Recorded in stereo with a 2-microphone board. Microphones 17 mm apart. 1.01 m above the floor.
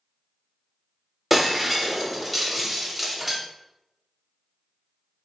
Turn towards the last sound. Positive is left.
turn(degrees=-15)  # may be behind; listen again after turning